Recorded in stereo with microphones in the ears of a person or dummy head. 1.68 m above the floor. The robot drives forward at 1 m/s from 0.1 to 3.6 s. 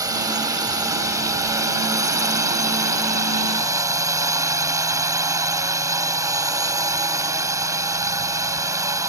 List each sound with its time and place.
0.0 s a drone: 20° right (ahead or behind); by 9.1 s 15° right (ahead or behind)